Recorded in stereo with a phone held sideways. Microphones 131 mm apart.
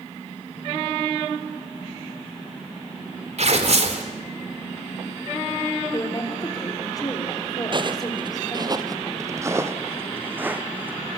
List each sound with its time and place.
3.4 s tearing paper: 60° right (ahead or behind), 3 m
5.9 s a woman speaking: 30° left (ahead or behind), 3.5 m
7.7 s footsteps: 40° right (ahead or behind), 1.3 m; by 11.0 s 15° right (ahead or behind), 3 m